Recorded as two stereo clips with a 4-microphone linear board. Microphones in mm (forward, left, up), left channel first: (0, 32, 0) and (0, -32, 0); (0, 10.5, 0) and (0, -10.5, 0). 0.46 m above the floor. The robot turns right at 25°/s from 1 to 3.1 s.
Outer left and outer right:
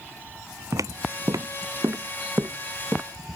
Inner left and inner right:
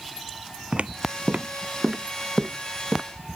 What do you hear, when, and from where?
0.7 s footsteps: 60° right (ahead or behind); by 3.0 s 30° right (ahead or behind)